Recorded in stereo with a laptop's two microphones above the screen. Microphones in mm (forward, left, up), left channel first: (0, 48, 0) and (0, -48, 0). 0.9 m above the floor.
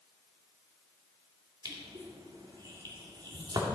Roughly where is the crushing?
Right.